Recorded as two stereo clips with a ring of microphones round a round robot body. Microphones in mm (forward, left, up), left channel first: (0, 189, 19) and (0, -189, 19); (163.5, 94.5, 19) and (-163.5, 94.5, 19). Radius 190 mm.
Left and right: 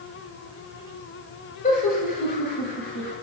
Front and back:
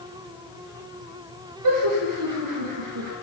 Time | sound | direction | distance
1.6 | laughter | 160° left | 7 m